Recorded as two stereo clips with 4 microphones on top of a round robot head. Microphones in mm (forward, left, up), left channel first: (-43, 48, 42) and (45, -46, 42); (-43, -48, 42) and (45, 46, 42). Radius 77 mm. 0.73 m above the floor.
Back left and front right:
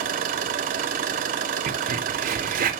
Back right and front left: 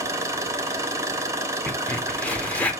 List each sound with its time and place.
0.0 s an engine running: 20° right, 1.1 m
1.7 s a crack: 55° right, 1.7 m